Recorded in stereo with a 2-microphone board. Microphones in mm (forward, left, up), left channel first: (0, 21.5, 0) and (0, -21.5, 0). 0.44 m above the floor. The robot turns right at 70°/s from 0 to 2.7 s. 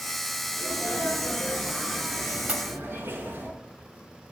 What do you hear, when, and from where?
0.6 s a sneeze: 105° left, 6 m; by 3.5 s 105° right, 6 m
2.5 s a pop: 35° right (ahead or behind), 0.9 m; by 2.7 s 45° right (ahead or behind), 0.9 m